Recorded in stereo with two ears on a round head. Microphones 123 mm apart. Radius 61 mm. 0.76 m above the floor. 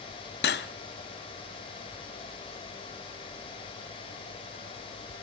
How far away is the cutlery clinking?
About 0.6 m.